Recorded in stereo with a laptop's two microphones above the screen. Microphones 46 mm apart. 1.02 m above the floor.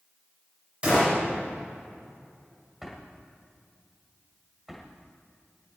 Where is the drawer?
10° right (ahead or behind), 1.6 m.